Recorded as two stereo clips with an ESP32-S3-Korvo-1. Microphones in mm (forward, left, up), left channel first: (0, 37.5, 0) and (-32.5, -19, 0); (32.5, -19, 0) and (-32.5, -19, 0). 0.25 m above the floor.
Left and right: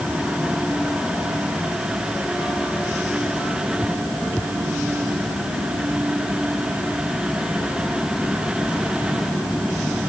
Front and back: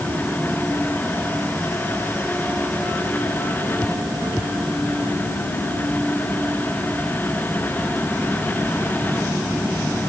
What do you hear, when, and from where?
Only background noise.